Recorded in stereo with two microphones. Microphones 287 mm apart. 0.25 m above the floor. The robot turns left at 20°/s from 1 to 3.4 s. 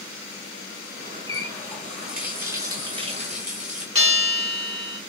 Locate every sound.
1.3 s a running tap: 15° left, 1.8 m; by 3.9 s 30° right, 1.8 m
4.0 s a bell: 50° right (ahead or behind), 4 m